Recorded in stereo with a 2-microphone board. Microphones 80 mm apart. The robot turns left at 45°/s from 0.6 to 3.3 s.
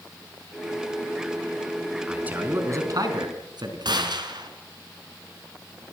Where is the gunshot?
65° right (ahead or behind), 3.5 m.